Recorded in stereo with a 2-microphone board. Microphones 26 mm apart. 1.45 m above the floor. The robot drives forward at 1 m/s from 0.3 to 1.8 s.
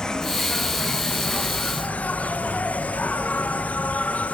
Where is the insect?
25° left (ahead or behind), 1.7 m; by 4.3 s 65° left (ahead or behind), 0.9 m.